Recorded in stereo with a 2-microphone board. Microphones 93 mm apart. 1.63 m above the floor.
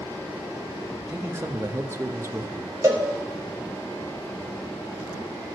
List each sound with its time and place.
1.1 s a man speaking: 30° right (ahead or behind), 0.8 m
2.8 s a cowbell: 30° right (ahead or behind), 1.7 m